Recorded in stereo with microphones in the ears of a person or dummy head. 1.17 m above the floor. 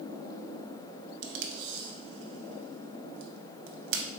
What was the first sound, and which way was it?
Tape being pulled, 65° right (ahead or behind).